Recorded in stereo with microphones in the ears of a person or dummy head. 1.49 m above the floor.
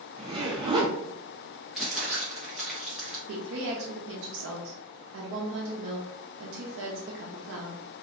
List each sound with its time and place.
0.2 s a zipper: 25° right (ahead or behind), 0.8 m
1.8 s crumpling: 5° right (ahead or behind), 0.9 m
3.3 s a woman speaking: 65° right (ahead or behind), 0.6 m